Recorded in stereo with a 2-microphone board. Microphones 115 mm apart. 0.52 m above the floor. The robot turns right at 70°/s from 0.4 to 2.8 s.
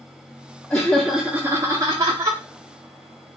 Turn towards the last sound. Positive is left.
turn(degrees=-45)